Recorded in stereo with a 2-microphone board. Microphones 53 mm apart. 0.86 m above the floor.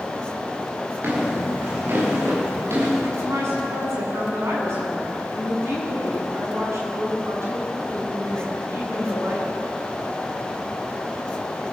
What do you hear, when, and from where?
1.0 s footsteps: 40° right (ahead or behind), 6 m; by 3.1 s 55° right (ahead or behind), 7.5 m
3.2 s a woman speaking: 55° right (ahead or behind), 9 m